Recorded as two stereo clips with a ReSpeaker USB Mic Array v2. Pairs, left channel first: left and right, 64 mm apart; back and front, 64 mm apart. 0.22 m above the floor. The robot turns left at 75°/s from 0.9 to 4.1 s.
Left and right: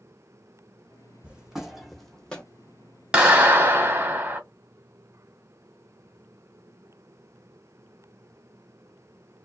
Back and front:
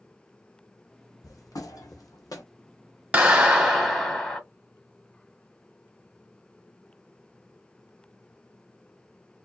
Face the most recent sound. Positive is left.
turn(degrees=-105)